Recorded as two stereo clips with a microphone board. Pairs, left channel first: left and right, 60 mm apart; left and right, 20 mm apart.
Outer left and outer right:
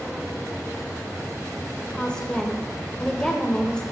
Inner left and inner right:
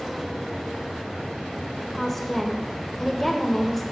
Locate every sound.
1.8 s a woman speaking: 15° left (ahead or behind), 1.1 m